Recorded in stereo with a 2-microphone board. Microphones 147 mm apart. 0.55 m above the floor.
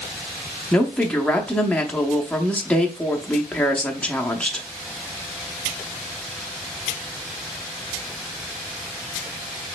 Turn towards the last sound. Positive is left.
turn(degrees=5)  # may be behind; listen again after turning